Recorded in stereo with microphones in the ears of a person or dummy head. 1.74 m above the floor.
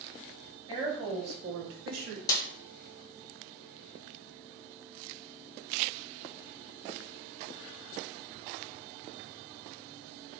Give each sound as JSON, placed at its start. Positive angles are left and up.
{"t": 0.7, "sound": "a woman speaking", "side_deg": -25, "distance_m": 1.2}
{"t": 2.3, "sound": "a snare drum", "side_deg": 20, "distance_m": 0.5}